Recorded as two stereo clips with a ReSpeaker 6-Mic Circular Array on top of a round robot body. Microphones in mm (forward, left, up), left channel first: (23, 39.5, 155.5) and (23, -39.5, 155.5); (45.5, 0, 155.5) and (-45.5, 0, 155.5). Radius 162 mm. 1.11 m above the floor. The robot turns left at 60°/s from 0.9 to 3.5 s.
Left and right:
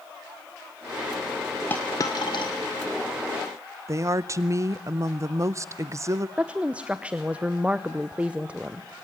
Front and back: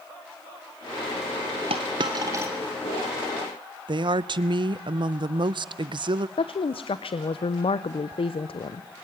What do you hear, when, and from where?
1.7 s a dropped coin: 160° left, 0.6 m; by 2.5 s 110° left, 0.6 m
3.9 s a woman speaking: 145° right, 0.6 m
6.4 s a woman speaking: 15° right, 0.8 m